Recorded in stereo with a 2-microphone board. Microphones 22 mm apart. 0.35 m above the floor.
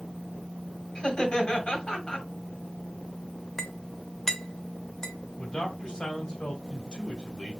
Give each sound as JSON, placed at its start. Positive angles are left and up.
{"t": 0.9, "sound": "laughter", "side_deg": 50, "distance_m": 1.9}
{"t": 3.6, "sound": "a clink", "side_deg": 20, "distance_m": 0.7}
{"t": 5.4, "sound": "a man speaking", "side_deg": 35, "distance_m": 1.7}